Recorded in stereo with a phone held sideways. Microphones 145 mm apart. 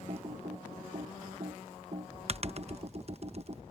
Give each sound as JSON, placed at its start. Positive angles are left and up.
{"t": 0.1, "sound": "typing on a keyboard", "side_deg": -45}